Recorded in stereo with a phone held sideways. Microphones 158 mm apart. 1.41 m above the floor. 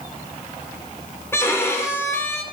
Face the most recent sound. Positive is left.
turn(degrees=15)  # may be behind; listen again after turning